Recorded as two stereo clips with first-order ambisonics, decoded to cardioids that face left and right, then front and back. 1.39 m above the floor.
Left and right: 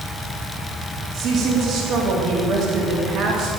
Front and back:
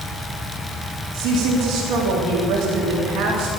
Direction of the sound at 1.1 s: 145° right.